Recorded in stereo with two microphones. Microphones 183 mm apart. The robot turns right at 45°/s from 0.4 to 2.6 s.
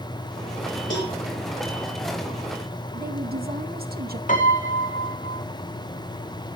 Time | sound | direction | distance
0.9 | a cowbell | 85° left | 6 m
2.9 | a woman speaking | 55° right (ahead or behind) | 1.6 m
4.3 | a piano | 45° left (ahead or behind) | 3 m